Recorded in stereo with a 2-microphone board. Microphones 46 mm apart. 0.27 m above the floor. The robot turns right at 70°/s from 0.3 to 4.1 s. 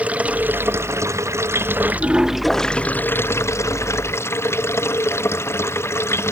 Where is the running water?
150° right; by 6.3 s 115° left.